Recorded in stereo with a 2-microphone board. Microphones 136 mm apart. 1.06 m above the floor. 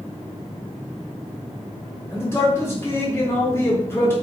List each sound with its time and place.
2.1 s a man speaking: 20° left (ahead or behind), 1.1 m